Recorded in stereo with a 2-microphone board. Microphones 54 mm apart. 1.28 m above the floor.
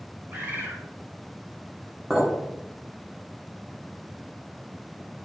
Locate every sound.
0.3 s a bird: 40° right (ahead or behind), 1.9 m
2.1 s a clink: 5° right (ahead or behind), 1.9 m